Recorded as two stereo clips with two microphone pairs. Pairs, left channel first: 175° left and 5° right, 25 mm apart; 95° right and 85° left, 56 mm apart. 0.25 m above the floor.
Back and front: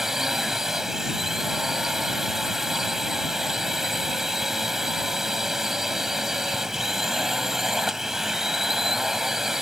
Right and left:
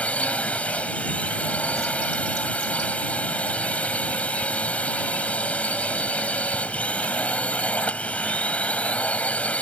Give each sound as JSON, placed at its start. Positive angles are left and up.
{"t": 0.0, "sound": "a drone", "azimuth_deg": -55}